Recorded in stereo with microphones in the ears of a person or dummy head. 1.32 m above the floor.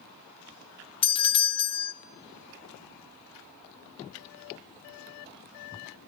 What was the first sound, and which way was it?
A doorbell, 25° left (ahead or behind).